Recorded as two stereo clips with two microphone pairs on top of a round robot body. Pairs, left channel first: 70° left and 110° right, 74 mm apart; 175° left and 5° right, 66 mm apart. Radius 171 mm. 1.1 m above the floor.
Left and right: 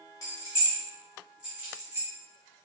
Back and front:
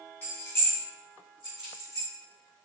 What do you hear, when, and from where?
0.2 s keys jangling: 110° left, 0.8 m; by 2.1 s 160° right, 1.0 m